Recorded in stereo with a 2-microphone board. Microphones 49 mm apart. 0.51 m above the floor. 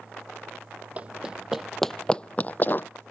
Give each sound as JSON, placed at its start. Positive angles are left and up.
{"t": 1.0, "sound": "running footsteps", "side_deg": -30}